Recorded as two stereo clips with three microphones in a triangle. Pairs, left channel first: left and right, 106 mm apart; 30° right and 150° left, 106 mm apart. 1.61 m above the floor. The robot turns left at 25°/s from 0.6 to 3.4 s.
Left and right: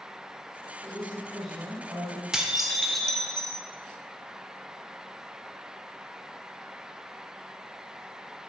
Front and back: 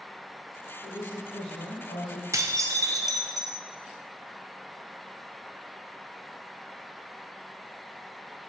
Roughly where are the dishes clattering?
Behind.